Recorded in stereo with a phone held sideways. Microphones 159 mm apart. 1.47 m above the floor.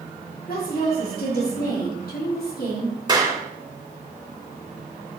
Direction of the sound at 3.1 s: 30° right (ahead or behind).